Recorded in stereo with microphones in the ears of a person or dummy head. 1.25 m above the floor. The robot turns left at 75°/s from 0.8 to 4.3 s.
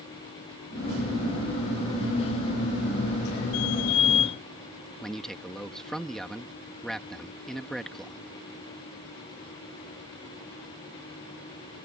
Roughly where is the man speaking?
Centre.